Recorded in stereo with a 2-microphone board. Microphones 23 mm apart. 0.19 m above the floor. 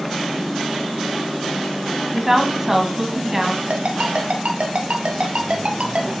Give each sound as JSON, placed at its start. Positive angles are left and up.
{"t": 2.1, "sound": "a woman speaking", "side_deg": -20, "distance_m": 1.5}
{"t": 3.7, "sound": "a ringtone", "side_deg": -65, "distance_m": 1.8}